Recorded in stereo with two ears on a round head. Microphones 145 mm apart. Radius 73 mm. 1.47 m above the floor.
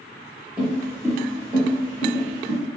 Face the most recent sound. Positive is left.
turn(degrees=-45)  # may be behind; listen again after turning